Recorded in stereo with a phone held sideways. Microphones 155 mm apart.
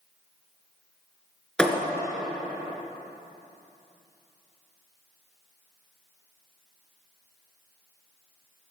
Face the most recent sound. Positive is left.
turn(degrees=5)  # may be behind; listen again after turning